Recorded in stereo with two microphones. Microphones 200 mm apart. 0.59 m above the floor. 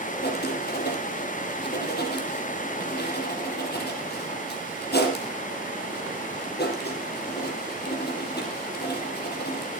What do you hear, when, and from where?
0.2 s writing: 55° left (ahead or behind), 5 m